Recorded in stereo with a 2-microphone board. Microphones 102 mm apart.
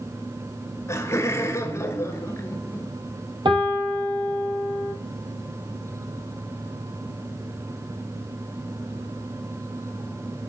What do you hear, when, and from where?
0.9 s laughter: 25° left (ahead or behind), 1.3 m
3.5 s a piano: 55° right (ahead or behind), 1.5 m